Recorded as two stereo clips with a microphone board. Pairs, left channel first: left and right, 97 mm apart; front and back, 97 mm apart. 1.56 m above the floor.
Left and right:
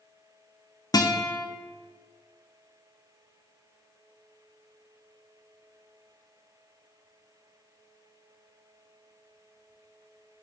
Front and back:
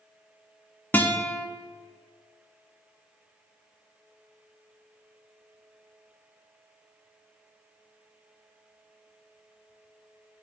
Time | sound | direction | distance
0.9 | a guitar | 65° left | 0.6 m